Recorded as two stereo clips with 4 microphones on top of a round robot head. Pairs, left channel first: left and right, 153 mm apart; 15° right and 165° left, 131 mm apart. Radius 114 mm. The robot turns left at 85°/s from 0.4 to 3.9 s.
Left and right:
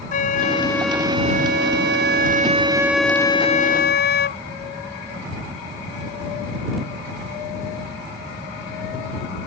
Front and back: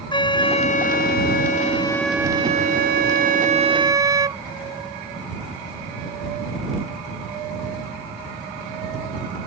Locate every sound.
0.1 s a flute: 40° left; by 4.4 s 105° left